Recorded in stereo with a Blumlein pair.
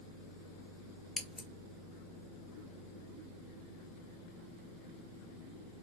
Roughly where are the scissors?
Ahead.